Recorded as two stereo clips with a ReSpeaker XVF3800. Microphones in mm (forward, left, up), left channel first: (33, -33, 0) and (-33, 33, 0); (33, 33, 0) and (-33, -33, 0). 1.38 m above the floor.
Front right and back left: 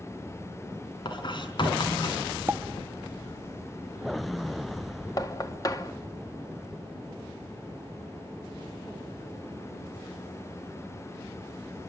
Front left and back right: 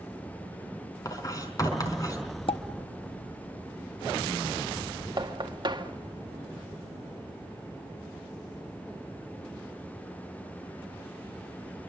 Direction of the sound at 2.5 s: 70° left.